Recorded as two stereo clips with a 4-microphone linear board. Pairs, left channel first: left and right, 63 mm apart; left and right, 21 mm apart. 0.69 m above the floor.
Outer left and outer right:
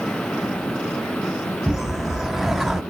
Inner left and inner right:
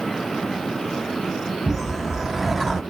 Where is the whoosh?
5° right (ahead or behind), 0.8 m.